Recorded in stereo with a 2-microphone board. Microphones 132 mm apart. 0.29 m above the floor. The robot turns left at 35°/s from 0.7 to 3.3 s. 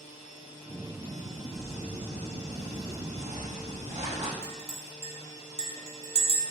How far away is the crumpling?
About 4 m.